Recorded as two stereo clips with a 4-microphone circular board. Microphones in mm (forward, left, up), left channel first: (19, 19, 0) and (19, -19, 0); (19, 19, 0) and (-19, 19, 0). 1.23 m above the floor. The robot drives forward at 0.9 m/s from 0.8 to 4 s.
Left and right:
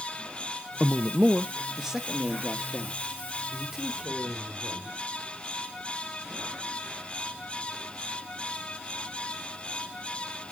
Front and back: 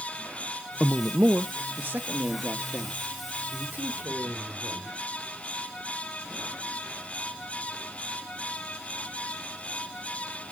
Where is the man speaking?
130° right, 0.7 m; by 4.9 s 170° right, 3.5 m.